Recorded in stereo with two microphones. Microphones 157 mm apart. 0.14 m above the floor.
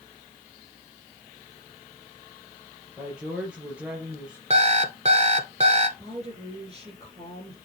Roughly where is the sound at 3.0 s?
Centre.